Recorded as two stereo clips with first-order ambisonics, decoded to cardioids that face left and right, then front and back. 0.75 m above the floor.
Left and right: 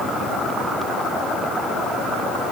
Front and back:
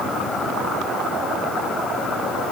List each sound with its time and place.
Only background noise.